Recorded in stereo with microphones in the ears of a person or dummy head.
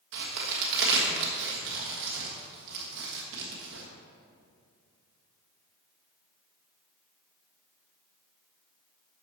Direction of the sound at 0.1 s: 65° right (ahead or behind).